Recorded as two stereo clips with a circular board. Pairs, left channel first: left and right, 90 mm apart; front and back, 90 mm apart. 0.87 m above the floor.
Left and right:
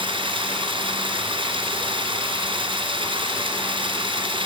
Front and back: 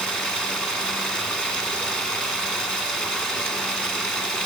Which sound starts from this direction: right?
Running water, at 0.0 s.